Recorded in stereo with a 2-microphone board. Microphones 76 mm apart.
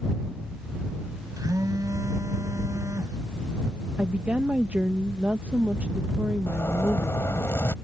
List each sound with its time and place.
1.4 s a phone buzzing: 50° right (ahead or behind)
4.0 s a woman speaking: 20° right (ahead or behind)
6.5 s a zipper: 35° left (ahead or behind)